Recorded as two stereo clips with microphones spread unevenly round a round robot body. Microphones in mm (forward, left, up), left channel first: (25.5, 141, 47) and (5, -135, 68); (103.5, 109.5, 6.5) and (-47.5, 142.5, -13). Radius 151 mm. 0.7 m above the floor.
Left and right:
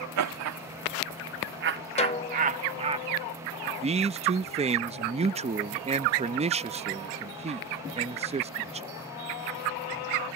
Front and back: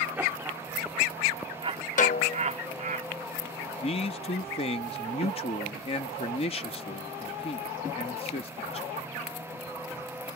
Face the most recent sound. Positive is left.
turn(degrees=-40)